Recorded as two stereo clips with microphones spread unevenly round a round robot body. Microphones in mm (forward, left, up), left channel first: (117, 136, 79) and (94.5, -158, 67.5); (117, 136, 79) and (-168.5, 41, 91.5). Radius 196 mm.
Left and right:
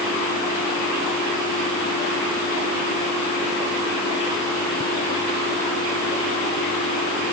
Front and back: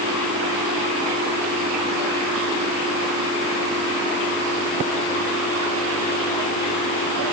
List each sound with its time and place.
Only background noise.